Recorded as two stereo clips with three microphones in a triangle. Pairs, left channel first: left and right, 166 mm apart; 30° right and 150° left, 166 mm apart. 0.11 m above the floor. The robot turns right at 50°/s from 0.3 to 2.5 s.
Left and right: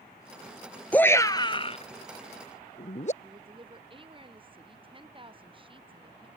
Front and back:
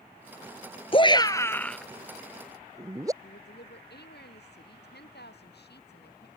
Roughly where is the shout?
Ahead.